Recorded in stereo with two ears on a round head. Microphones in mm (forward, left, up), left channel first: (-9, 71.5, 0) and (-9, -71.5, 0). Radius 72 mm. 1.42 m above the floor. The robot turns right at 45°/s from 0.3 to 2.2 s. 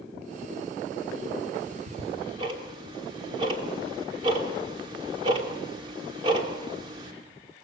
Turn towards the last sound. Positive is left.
turn(degrees=-30)  # may be behind; listen again after turning